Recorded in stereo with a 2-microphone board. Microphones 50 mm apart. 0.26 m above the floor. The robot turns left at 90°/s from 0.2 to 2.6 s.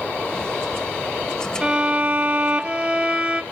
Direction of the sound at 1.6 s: 25° right (ahead or behind).